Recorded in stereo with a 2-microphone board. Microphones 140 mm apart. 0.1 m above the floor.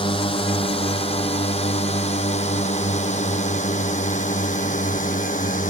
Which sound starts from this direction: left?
A drone, at 0.0 s.